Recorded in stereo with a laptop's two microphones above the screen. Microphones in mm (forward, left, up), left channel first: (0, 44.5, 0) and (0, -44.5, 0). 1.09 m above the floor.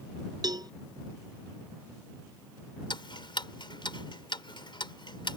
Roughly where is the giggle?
I don't hear a giggle.